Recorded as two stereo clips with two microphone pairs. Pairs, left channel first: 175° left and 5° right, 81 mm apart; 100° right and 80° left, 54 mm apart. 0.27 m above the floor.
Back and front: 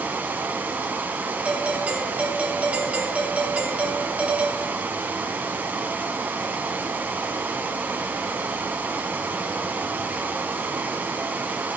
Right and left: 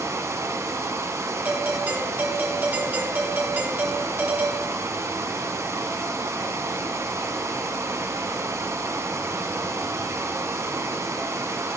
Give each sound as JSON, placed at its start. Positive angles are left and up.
{"t": 0.0, "sound": "running water", "azimuth_deg": 60, "distance_m": 1.2}
{"t": 1.4, "sound": "a doorbell", "azimuth_deg": 55, "distance_m": 1.7}